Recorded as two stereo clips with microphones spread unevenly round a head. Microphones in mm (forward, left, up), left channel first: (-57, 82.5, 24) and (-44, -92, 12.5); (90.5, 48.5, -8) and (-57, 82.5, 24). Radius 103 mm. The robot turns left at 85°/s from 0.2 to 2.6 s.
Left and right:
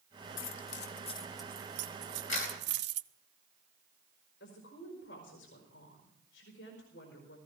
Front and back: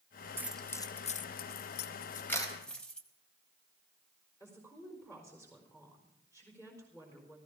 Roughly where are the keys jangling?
Left.